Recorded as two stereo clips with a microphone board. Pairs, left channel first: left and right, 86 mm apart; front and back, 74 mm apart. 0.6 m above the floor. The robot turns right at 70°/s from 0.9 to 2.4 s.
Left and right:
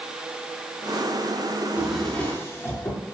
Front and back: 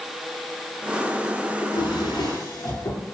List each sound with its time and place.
1.6 s a drawer: 25° right, 5.5 m; by 3.0 s 30° left, 5.5 m